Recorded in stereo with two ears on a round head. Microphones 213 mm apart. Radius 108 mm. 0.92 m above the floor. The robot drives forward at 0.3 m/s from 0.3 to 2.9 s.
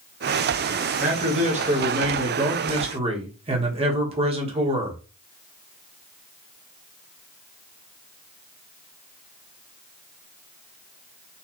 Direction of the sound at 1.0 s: 30° right (ahead or behind).